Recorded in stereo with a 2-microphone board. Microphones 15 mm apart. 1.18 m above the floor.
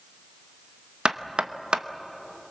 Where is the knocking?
70° right (ahead or behind), 0.9 m.